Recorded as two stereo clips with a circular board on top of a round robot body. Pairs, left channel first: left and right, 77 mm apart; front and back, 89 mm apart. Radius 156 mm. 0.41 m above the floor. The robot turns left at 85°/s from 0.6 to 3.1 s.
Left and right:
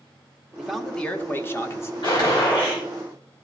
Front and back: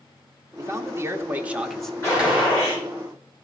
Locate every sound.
0.6 s a man speaking: 170° right, 1.0 m; by 1.9 s 80° left, 1.0 m
2.0 s a gunshot: 60° left, 4.5 m; by 2.8 s 10° right, 4.5 m